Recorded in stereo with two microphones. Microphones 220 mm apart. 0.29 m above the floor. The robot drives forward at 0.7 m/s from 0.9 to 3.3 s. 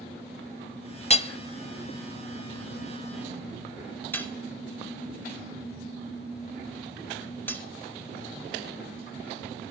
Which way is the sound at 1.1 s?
30° left (ahead or behind).